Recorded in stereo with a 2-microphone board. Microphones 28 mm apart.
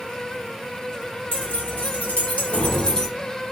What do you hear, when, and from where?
1.3 s keys jangling: 65° left (ahead or behind), 1.9 m; by 3.1 s 20° left (ahead or behind), 0.9 m